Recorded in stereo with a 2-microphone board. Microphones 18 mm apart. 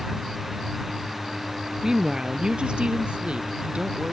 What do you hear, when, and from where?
1.8 s a woman speaking: 30° right (ahead or behind); by 4.1 s 70° right (ahead or behind)